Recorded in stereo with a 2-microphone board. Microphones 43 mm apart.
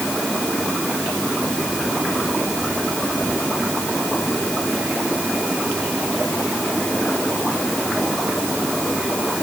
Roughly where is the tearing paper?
I don't hear tearing paper.